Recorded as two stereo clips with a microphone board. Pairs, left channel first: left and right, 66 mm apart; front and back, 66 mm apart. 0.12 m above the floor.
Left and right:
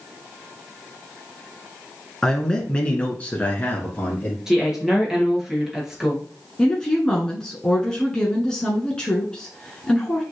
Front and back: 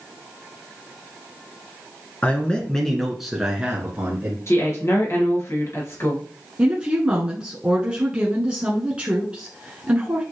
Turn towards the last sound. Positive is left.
turn(degrees=145)